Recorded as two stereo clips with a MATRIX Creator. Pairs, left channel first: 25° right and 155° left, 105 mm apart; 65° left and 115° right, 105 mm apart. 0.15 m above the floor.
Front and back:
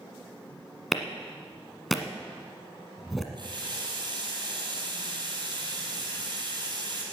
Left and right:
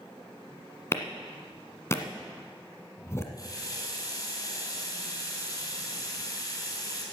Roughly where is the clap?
Ahead left.